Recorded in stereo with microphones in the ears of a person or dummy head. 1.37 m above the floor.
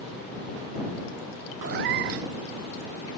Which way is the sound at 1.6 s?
55° right (ahead or behind).